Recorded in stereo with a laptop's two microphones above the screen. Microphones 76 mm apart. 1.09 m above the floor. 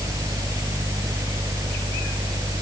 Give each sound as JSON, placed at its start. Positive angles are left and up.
{"t": 0.0, "sound": "a fan", "side_deg": -50}